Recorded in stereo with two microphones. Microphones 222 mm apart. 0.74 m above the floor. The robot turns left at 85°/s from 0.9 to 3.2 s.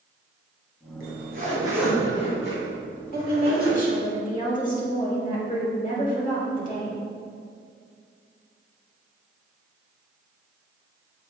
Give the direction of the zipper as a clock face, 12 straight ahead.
4 o'clock.